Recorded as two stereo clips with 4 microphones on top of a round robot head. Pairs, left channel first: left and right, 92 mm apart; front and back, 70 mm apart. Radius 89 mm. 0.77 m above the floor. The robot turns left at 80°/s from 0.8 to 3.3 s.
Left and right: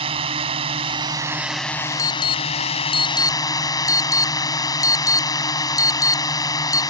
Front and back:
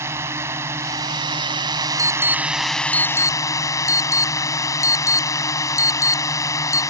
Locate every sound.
0.0 s a drone: 120° right; by 6.9 s 40° left
2.0 s an alarm: 145° left; by 6.8 s 40° left